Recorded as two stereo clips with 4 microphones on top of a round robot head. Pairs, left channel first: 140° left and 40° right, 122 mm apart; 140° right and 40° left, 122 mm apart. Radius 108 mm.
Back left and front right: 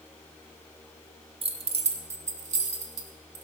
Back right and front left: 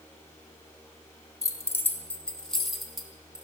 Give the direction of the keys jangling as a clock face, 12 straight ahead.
3 o'clock.